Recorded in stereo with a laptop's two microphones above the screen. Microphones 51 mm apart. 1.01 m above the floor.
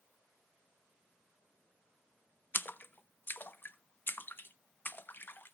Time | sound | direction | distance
2.5 | a splash | 40° left (ahead or behind) | 0.6 m